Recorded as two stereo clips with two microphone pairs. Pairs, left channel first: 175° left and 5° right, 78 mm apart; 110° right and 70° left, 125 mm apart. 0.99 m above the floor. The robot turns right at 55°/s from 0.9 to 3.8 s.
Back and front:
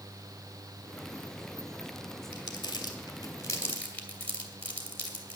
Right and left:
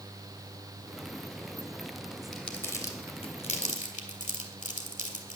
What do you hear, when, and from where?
2.3 s crumpling: 160° left, 2.0 m; by 5.4 s 115° right, 2.0 m